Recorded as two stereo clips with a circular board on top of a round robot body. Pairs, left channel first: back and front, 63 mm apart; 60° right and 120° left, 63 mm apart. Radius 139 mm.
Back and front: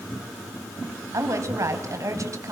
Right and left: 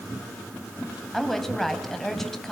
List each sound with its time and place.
1.1 s a woman speaking: 25° left, 3.5 m